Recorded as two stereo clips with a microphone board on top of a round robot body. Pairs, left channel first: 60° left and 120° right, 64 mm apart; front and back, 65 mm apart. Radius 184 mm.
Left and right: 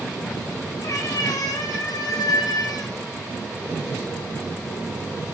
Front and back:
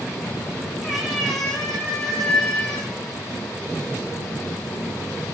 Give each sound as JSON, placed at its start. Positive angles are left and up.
{"t": 0.8, "sound": "a cat meowing", "azimuth_deg": 95, "distance_m": 4.0}